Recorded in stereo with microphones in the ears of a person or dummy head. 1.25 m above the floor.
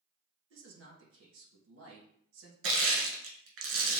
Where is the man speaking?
70° right (ahead or behind), 1.8 m.